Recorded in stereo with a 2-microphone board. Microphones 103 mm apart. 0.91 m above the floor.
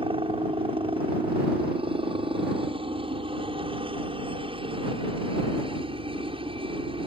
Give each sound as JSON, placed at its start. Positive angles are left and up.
{"t": 0.0, "sound": "a helicopter", "side_deg": -60}